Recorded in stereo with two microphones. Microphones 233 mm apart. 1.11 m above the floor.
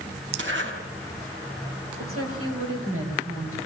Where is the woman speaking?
70° right (ahead or behind), 7.5 m.